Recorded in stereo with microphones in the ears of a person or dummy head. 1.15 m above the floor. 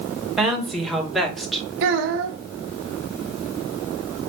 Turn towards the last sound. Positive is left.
turn(degrees=-65)  # may be behind; listen again after turning